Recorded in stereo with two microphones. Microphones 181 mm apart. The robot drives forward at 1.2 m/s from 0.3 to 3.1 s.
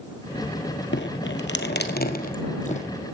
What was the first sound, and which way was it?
Dripping, 80° left.